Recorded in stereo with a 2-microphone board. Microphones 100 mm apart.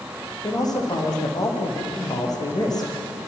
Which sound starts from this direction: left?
A man speaking, at 0.4 s.